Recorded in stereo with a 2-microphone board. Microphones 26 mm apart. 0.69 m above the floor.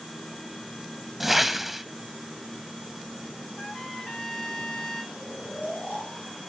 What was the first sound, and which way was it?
A whoosh, 10° right (ahead or behind).